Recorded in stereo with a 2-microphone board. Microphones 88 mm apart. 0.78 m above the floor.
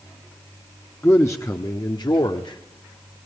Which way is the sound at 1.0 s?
25° left (ahead or behind).